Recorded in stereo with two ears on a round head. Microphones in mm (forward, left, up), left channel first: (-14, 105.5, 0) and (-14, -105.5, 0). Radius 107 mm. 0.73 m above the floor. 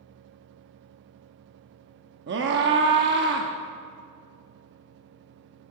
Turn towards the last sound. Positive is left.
turn(degrees=-50)  # may be behind; listen again after turning